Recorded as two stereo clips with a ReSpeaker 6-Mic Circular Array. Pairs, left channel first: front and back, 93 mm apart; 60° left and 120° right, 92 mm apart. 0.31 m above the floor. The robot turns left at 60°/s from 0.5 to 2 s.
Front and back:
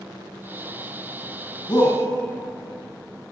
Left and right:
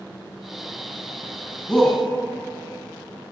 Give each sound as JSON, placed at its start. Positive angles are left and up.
{"t": 1.7, "sound": "a shout", "azimuth_deg": -25, "distance_m": 3.0}